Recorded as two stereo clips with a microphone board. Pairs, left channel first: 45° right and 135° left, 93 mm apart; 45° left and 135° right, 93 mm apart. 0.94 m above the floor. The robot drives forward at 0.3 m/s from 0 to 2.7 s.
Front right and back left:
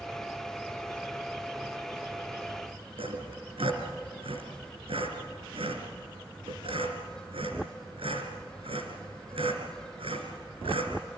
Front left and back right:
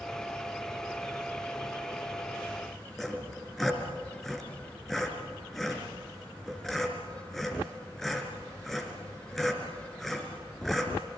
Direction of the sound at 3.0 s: 135° left.